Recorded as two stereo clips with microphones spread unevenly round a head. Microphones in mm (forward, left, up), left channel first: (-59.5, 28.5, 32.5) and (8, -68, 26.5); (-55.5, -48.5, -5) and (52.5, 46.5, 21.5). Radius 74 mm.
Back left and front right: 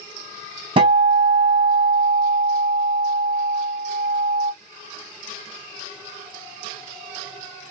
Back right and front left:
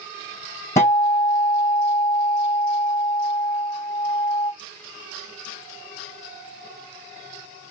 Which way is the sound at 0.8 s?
65° right.